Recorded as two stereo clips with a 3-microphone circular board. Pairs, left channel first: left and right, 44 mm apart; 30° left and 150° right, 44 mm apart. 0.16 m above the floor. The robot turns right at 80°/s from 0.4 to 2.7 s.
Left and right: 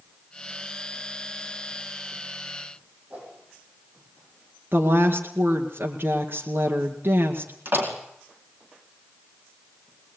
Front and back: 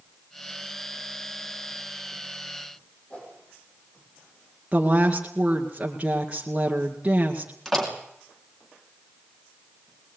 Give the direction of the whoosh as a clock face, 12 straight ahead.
1 o'clock.